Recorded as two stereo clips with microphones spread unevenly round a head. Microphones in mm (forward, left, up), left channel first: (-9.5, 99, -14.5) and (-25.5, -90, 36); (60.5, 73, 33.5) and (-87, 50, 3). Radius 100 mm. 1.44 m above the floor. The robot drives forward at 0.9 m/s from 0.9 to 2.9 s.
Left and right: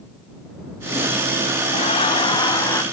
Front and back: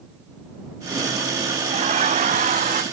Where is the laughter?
145° left; by 2.8 s 160° left.